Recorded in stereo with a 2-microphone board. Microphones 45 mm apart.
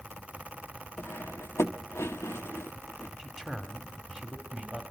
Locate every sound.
1.0 s cutlery clinking: 70° left (ahead or behind), 0.9 m
3.2 s a man speaking: 5° left (ahead or behind), 2.5 m